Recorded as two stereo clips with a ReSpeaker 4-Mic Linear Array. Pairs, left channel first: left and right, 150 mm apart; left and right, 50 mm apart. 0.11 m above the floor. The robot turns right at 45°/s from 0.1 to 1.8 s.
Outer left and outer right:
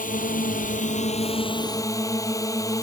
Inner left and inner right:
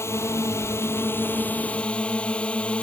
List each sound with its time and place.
0.0 s a drone: 80° left; by 2.8 s 155° left